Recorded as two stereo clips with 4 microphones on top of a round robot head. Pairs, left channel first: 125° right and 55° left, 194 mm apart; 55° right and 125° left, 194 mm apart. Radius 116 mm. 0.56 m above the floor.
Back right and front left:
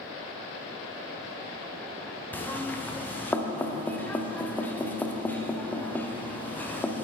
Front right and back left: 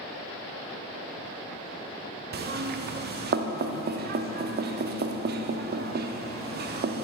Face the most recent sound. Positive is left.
turn(degrees=155)